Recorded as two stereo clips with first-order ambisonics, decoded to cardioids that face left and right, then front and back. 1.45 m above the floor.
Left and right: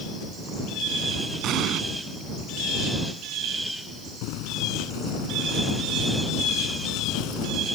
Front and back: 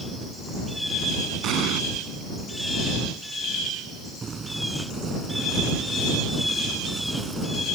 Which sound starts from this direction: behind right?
An explosion, at 1.4 s.